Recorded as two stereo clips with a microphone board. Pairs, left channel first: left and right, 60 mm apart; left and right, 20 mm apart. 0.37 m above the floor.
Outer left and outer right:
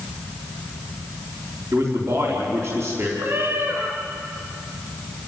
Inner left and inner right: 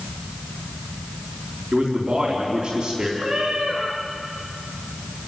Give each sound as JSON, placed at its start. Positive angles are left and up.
{"t": 1.7, "sound": "a man speaking", "side_deg": -50, "distance_m": 4.0}
{"t": 3.2, "sound": "a cat meowing", "side_deg": -35, "distance_m": 5.0}